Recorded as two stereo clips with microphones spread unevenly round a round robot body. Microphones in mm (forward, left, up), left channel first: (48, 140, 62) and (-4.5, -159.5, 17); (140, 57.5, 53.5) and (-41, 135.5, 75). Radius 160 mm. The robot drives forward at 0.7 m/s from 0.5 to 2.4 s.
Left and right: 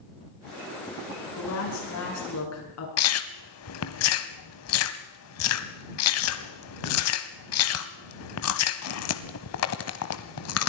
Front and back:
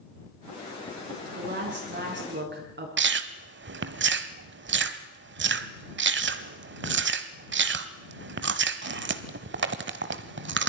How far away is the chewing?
About 1.1 m.